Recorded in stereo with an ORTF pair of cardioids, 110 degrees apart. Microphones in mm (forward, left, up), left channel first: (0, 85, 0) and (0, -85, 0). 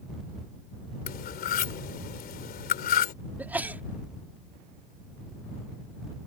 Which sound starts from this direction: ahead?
A sneeze, at 3.4 s.